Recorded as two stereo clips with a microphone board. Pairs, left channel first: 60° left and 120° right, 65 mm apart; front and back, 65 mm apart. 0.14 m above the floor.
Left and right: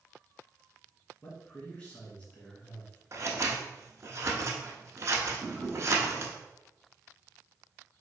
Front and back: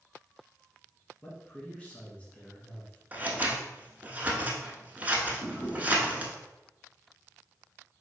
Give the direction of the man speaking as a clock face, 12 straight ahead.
11 o'clock.